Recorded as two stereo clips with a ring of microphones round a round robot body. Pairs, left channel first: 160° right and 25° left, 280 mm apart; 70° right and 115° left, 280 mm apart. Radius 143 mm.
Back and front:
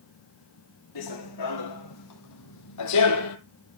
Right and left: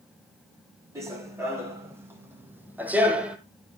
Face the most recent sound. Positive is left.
turn(degrees=-160)